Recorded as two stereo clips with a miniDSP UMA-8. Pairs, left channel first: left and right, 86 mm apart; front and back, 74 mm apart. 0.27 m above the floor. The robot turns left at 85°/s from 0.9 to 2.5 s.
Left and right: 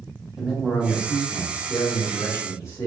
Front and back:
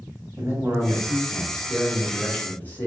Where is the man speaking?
170° right, 2 m; by 2.9 s 55° left, 2 m.